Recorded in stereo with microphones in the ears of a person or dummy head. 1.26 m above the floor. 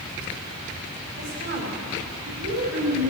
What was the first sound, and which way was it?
A woman speaking, 50° right (ahead or behind).